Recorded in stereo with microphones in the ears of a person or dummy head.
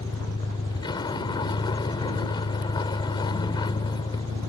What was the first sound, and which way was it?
A vehicle, 20° left (ahead or behind).